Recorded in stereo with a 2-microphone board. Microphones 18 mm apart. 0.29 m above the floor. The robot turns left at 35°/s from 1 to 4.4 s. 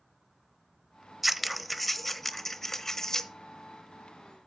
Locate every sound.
1.2 s scissors: 170° right, 0.8 m; by 3.3 s 120° left, 0.8 m